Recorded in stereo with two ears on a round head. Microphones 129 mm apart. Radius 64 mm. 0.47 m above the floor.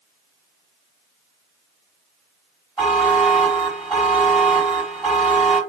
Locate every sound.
2.8 s a buzzer: 10° right (ahead or behind), 1.8 m